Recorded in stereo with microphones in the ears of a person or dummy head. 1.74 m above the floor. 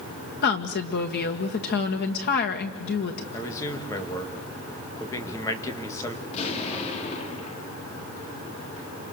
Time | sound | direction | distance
0.4 | a woman speaking | 55° left (ahead or behind) | 1.9 m
3.3 | a man speaking | 15° left (ahead or behind) | 2.5 m
6.2 | an explosion | 35° left (ahead or behind) | 3 m